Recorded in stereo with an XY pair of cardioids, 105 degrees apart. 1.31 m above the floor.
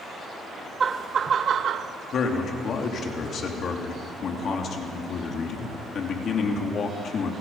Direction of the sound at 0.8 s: 35° right.